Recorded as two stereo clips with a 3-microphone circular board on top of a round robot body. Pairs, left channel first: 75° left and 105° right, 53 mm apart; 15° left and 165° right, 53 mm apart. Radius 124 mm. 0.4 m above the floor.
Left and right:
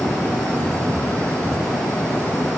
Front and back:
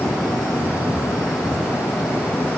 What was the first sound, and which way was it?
Only background noise.